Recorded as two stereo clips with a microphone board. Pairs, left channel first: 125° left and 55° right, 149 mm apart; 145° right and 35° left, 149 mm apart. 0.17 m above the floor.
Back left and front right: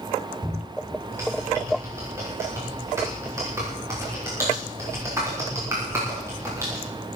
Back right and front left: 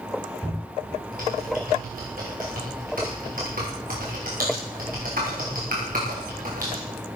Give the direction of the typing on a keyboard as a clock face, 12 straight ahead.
11 o'clock.